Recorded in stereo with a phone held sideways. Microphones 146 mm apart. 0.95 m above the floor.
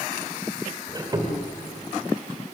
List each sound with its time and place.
0.9 s a squeak: 30° right (ahead or behind), 2 m